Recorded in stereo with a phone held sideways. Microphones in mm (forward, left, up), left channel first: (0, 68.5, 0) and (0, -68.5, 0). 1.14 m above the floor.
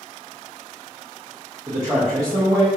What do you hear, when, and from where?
1.7 s a man speaking: 30° right (ahead or behind), 0.8 m